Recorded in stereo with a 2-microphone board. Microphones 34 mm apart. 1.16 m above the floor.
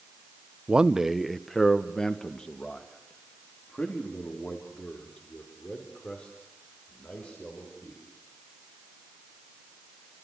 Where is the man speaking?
30° right (ahead or behind), 0.8 m; by 8.0 s 40° left (ahead or behind), 6.5 m.